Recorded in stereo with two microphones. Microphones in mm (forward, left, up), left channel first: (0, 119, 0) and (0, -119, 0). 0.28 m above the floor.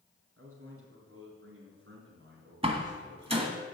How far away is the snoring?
No snoring in this recording.